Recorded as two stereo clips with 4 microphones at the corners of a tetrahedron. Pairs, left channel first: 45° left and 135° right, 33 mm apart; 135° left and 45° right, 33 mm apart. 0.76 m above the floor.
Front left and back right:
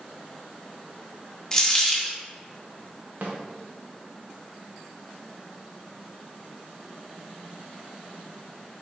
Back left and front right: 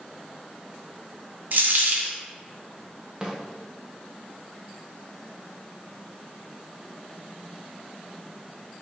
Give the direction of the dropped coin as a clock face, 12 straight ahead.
1 o'clock.